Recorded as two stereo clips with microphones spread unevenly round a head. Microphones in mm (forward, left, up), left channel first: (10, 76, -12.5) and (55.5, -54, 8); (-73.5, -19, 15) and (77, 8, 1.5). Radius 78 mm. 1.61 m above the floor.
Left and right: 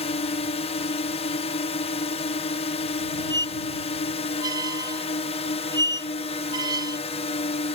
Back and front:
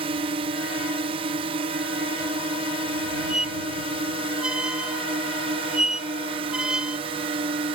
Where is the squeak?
80° right.